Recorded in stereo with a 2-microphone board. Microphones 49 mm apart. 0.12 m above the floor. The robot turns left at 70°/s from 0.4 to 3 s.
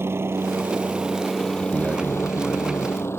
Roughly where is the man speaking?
Behind right.